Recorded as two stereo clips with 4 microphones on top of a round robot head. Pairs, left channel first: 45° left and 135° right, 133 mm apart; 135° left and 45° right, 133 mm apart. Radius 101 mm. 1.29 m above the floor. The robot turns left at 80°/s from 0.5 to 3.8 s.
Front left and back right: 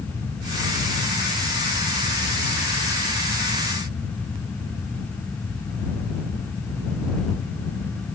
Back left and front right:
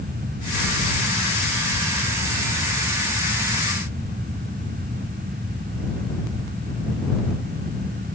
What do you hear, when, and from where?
Only background noise.